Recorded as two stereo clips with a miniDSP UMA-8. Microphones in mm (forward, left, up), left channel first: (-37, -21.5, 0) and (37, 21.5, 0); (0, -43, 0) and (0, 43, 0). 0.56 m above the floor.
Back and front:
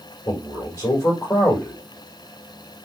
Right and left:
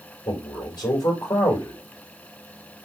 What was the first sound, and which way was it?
A man speaking, 110° right.